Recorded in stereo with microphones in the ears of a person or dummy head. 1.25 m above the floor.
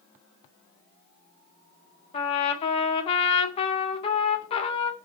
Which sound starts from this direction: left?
A trumpet, at 2.1 s.